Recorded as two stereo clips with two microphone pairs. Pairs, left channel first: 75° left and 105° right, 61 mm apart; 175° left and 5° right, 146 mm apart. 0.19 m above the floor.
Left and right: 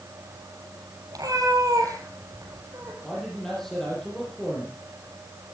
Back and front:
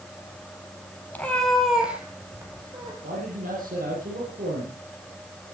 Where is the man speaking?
10° right, 8.5 m.